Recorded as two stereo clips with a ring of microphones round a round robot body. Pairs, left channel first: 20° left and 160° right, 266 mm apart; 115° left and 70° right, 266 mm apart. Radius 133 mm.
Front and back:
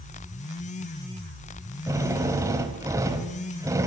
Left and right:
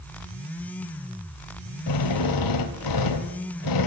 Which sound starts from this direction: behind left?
A drill, at 1.9 s.